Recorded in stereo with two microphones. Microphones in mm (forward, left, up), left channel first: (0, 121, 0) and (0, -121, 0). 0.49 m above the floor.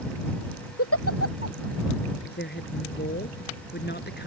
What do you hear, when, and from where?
0.8 s a giggle: 70° left (ahead or behind)
2.2 s a woman speaking: 45° left (ahead or behind)